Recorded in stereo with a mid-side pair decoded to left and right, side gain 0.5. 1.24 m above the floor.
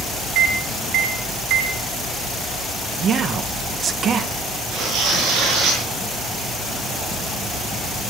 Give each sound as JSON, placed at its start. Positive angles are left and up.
{"t": 0.3, "sound": "a microwave", "azimuth_deg": -70, "distance_m": 1.8}
{"t": 3.0, "sound": "a man speaking", "azimuth_deg": -50, "distance_m": 1.2}
{"t": 4.7, "sound": "tearing paper", "azimuth_deg": -70, "distance_m": 6.5}